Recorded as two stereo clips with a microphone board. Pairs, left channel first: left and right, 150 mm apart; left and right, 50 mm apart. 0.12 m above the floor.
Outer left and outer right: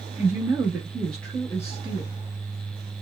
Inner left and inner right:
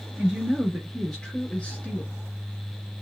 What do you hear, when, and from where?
0.2 s a woman speaking: 20° right (ahead or behind), 1.6 m; by 2.1 s 30° left (ahead or behind), 1.4 m